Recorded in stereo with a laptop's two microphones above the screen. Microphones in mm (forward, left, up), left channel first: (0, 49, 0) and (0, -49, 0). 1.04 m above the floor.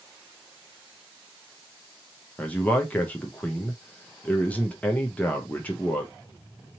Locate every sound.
2.4 s a man speaking: 15° left (ahead or behind), 0.6 m